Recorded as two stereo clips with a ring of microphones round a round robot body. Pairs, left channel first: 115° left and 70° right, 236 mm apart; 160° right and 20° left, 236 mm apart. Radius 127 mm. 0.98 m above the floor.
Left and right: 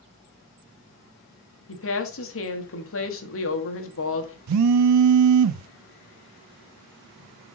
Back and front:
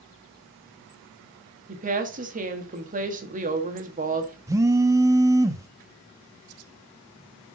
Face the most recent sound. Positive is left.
turn(degrees=-55)